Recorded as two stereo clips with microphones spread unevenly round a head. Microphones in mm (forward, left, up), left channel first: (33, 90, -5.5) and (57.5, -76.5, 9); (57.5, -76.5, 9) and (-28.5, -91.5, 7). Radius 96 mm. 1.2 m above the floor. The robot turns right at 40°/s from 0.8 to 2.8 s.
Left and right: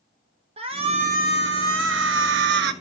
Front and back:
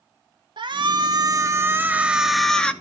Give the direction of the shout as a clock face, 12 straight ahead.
5 o'clock.